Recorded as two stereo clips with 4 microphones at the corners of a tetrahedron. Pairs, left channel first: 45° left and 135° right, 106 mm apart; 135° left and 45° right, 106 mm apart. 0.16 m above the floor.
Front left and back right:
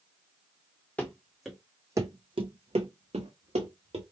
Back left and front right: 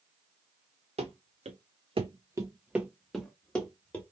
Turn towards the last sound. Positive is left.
turn(degrees=-150)